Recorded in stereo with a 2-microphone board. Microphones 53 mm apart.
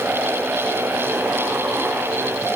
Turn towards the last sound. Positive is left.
No sound to turn to.